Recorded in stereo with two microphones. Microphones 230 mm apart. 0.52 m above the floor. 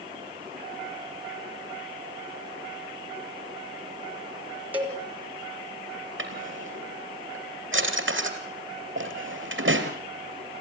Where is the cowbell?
10° right (ahead or behind), 3.5 m.